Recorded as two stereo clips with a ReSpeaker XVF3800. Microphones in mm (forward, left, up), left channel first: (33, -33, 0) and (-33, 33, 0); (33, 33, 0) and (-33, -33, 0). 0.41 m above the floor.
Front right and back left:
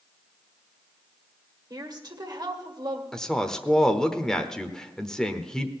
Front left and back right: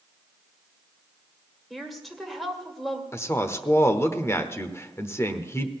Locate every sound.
1.7 s a woman speaking: 135° left, 1.9 m
3.1 s a woman speaking: 30° left, 1.0 m